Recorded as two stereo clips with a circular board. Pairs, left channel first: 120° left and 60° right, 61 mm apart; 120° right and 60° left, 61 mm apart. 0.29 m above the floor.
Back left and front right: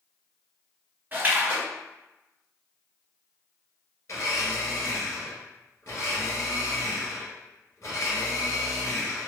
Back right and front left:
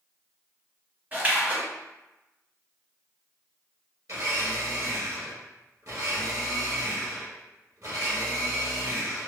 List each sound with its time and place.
1.1 s a splash: straight ahead, 1.3 m
4.1 s a blender: 80° left, 1.8 m